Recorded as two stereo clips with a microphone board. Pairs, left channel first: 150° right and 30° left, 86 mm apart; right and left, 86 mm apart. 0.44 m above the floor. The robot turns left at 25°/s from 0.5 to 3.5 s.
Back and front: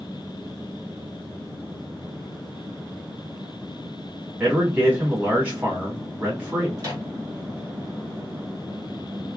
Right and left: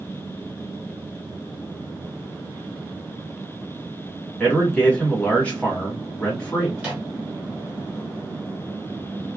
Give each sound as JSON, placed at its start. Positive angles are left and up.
{"t": 4.4, "sound": "a man speaking", "azimuth_deg": -25, "distance_m": 1.3}
{"t": 6.8, "sound": "a microwave", "azimuth_deg": 20, "distance_m": 1.4}